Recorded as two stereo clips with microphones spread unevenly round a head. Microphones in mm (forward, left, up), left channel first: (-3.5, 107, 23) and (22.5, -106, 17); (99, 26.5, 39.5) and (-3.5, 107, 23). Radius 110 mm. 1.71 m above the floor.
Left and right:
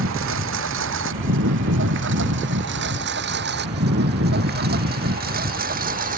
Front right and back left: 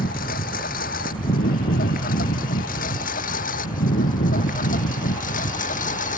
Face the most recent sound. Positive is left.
turn(degrees=-30)